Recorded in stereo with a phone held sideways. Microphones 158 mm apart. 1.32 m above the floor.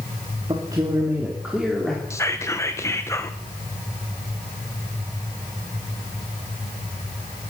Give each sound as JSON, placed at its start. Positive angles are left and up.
{"t": 0.5, "sound": "a man speaking", "side_deg": -30, "distance_m": 2.5}
{"t": 2.1, "sound": "whispering", "side_deg": 20, "distance_m": 1.1}